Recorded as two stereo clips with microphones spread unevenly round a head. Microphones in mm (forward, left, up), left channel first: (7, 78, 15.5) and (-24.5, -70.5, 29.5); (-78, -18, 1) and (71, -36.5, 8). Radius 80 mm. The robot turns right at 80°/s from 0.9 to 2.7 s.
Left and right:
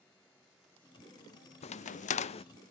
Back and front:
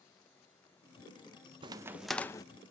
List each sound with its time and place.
1.6 s a crack: 50° left, 0.5 m; by 2.5 s 115° left, 0.5 m